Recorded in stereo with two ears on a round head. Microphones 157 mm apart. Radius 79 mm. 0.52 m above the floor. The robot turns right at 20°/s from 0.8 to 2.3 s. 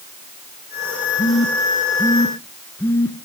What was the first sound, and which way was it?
A phone buzzing, 35° left (ahead or behind).